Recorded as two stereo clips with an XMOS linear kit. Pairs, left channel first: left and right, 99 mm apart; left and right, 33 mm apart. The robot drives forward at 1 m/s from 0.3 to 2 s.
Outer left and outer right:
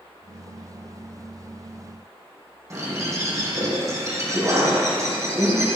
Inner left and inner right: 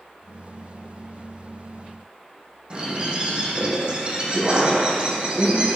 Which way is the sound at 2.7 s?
30° right (ahead or behind).